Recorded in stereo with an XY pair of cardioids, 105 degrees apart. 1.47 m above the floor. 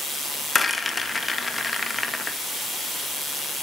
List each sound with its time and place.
0.6 s a rattle: 15° left, 2 m